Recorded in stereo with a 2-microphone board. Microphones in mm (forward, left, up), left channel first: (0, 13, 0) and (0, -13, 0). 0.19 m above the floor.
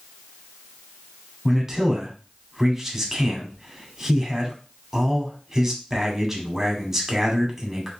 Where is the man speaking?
10° right (ahead or behind), 1.0 m.